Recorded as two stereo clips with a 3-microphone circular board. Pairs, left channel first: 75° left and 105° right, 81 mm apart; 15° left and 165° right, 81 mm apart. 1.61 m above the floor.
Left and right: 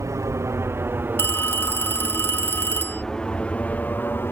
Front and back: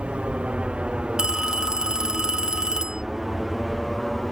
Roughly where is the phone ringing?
Behind left.